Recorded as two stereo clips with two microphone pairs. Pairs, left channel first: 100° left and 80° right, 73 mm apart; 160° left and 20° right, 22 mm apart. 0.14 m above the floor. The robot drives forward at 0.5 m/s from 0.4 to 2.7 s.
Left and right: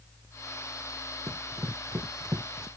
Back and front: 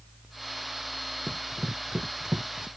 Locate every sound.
1.3 s running footsteps: 50° right; by 2.7 s 60° right